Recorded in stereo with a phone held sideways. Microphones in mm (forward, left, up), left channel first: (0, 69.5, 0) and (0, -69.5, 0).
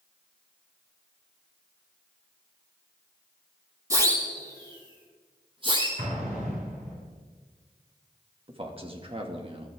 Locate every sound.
3.9 s a siren: 20° right (ahead or behind), 8.5 m; by 5.9 s 40° right (ahead or behind), 9 m
6.0 s an explosion: 85° right, 8 m
8.5 s a man speaking: 40° right (ahead or behind), 2.5 m